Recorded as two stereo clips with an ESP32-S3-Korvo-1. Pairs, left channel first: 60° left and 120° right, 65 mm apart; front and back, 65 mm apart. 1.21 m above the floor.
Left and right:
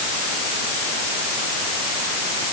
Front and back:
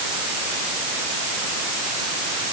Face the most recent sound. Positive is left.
No sound to turn to.